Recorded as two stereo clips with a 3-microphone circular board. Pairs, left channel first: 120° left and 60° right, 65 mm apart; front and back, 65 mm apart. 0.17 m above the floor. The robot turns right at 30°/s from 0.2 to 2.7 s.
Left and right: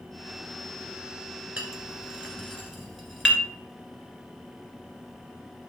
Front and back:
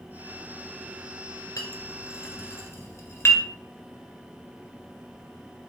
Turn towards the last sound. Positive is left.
turn(degrees=30)